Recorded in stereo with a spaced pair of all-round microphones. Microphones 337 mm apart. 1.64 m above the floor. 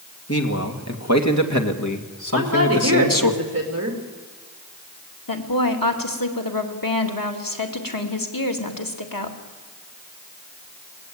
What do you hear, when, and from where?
0.3 s a man speaking: 45° left (ahead or behind), 2.5 m; by 3.3 s 75° left (ahead or behind), 1.9 m
2.3 s a woman speaking: 45° right (ahead or behind), 3 m
5.3 s a woman speaking: 80° left, 2.5 m